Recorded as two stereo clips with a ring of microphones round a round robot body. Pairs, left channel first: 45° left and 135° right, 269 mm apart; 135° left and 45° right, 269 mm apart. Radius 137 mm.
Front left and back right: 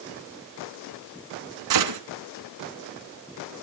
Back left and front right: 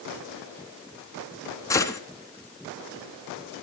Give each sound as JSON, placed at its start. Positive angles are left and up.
{"t": 1.7, "sound": "a gunshot", "azimuth_deg": -145, "distance_m": 2.0}